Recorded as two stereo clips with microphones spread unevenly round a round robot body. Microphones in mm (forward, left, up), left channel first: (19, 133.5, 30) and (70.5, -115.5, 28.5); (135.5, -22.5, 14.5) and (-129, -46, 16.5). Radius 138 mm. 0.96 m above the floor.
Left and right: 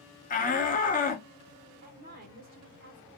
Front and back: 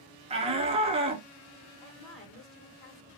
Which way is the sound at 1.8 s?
30° right.